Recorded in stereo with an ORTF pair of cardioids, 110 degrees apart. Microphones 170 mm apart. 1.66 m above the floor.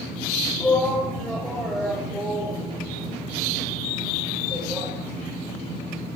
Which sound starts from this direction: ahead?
A shout, at 0.6 s.